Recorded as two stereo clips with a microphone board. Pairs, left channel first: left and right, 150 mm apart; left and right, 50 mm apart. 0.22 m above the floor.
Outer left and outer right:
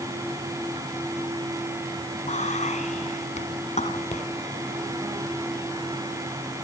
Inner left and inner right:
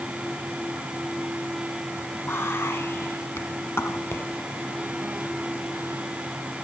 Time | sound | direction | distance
2.3 | whispering | 55° left (ahead or behind) | 2 m